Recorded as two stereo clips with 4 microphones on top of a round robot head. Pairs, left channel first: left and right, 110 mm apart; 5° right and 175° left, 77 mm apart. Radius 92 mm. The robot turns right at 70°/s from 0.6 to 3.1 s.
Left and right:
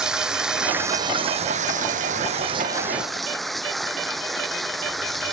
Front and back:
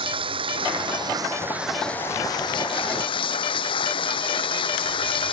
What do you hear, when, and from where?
0.0 s running water: 175° right; by 5.3 s straight ahead